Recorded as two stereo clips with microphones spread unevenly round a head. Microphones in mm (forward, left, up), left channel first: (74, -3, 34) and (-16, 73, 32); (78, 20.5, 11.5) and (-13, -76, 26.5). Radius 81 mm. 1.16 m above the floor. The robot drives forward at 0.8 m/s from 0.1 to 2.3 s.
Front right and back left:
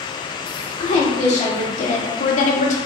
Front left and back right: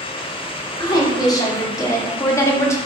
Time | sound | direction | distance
0.8 | a woman speaking | 15° right | 3 m